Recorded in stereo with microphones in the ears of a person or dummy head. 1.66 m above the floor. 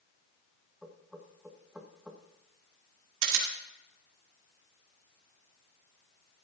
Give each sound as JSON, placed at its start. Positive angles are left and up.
{"t": 0.8, "sound": "knocking", "side_deg": -10, "distance_m": 1.4}
{"t": 3.2, "sound": "a camera shutter", "side_deg": -75, "distance_m": 2.5}